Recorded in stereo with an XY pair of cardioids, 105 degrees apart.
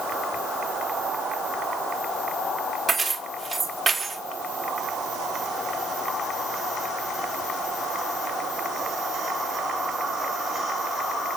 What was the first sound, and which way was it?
Keys jangling, 30° right.